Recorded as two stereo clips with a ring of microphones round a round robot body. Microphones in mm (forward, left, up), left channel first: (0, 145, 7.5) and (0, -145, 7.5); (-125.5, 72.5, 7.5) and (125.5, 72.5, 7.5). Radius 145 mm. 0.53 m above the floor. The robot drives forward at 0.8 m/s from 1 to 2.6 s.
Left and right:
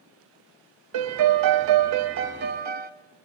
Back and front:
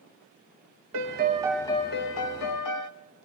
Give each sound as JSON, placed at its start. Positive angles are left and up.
{"t": 0.9, "sound": "a piano", "azimuth_deg": -50, "distance_m": 0.7}